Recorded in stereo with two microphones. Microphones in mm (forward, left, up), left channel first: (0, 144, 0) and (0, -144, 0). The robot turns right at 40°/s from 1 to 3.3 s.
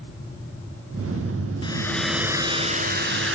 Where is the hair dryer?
160° left, 1.2 m; by 3.4 s 130° right, 1.2 m.